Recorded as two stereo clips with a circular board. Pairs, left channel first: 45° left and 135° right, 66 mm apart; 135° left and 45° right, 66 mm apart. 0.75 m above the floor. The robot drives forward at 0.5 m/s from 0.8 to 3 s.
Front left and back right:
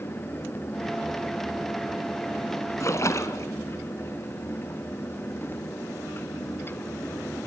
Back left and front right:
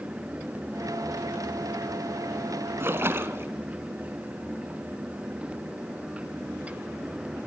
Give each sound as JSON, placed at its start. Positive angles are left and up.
{"t": 2.8, "sound": "a splash", "azimuth_deg": 5, "distance_m": 1.6}